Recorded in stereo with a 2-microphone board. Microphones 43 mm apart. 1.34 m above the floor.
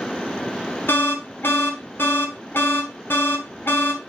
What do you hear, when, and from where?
0.9 s an alarm: 55° left (ahead or behind), 1.3 m